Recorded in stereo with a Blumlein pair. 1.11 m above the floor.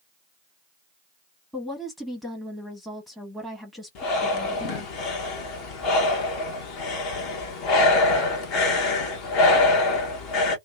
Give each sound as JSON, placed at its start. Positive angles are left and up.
{"t": 1.5, "sound": "a woman speaking", "azimuth_deg": 5, "distance_m": 1.1}
{"t": 4.0, "sound": "breathing", "azimuth_deg": 40, "distance_m": 0.9}